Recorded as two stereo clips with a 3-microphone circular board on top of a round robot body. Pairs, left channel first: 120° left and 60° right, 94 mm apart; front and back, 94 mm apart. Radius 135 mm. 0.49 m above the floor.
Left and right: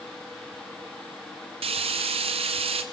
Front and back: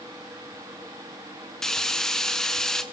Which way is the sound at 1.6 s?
85° right.